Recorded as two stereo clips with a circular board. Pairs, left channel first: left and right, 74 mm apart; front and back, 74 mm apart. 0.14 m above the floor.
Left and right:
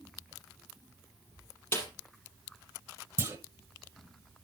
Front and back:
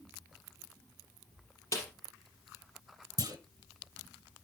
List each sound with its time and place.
1.7 s a snare drum: 40° left, 4.5 m
3.2 s a clunk: 140° right, 1.2 m